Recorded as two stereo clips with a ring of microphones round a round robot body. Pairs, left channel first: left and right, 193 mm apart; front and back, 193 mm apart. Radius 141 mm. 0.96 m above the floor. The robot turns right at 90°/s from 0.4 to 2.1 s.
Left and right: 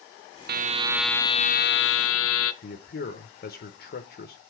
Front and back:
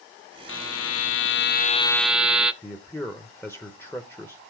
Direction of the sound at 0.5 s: 50° right.